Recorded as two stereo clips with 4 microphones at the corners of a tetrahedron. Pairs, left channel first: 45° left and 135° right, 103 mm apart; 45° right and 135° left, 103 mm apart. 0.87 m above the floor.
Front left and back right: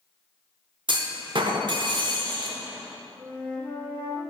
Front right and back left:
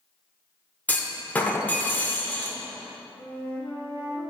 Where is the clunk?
115° right, 0.7 m.